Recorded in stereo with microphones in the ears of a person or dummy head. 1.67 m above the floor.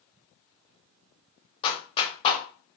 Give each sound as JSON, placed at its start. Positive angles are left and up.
{"t": 1.6, "sound": "a clap", "side_deg": 25, "distance_m": 0.7}